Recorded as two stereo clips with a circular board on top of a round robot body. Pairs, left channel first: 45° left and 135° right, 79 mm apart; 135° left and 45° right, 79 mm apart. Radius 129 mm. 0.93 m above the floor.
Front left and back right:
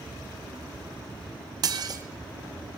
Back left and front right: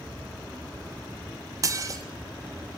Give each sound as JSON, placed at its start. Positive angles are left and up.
{"t": 1.6, "sound": "dishes clattering", "azimuth_deg": -95, "distance_m": 0.9}